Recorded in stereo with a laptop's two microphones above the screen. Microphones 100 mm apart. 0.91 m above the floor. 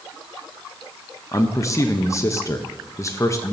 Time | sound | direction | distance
1.3 | a man speaking | 30° left (ahead or behind) | 0.8 m